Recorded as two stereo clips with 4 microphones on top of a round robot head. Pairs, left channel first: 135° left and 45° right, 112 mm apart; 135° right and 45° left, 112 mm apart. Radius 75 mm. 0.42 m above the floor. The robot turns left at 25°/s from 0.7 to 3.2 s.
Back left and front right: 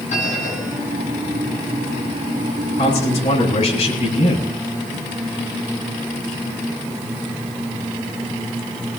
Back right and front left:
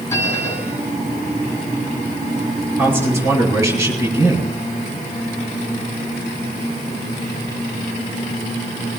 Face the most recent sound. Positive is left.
turn(degrees=105)